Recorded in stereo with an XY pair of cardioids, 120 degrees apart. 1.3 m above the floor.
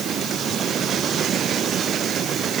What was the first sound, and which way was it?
Only background noise.